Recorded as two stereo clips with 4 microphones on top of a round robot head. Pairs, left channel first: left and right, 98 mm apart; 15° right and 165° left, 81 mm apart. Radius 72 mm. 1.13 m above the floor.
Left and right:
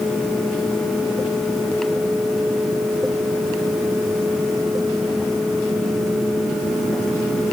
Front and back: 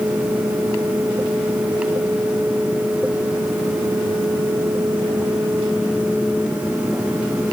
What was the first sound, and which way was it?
Only background noise.